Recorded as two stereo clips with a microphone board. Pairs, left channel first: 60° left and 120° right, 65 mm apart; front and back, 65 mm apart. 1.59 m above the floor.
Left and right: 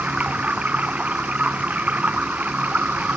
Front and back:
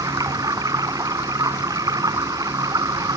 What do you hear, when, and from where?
0.0 s running water: 170° left